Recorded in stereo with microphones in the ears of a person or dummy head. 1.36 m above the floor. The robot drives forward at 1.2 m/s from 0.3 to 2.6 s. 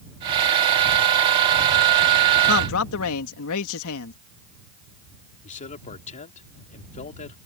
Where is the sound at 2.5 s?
80° left; by 4.1 s 75° left (ahead or behind).